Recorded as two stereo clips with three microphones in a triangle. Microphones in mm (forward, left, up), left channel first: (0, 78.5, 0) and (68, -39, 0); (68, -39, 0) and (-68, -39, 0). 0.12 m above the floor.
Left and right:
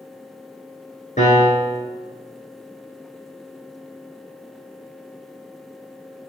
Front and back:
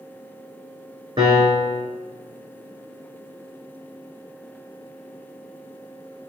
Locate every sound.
1.2 s a piano: 135° left, 2.5 m